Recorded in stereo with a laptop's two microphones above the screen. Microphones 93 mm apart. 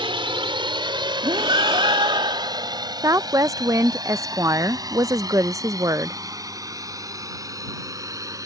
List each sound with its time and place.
0.0 s a drone: 65° right (ahead or behind); by 8.5 s 35° right (ahead or behind)
1.2 s breathing: 60° right (ahead or behind)
3.0 s a woman speaking: 35° right (ahead or behind)